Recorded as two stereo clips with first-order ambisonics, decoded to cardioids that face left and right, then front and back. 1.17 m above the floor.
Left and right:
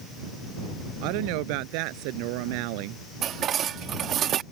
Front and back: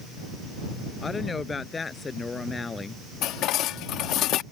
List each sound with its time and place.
1.0 s a woman speaking: 75° right
3.2 s dishes clattering: 40° right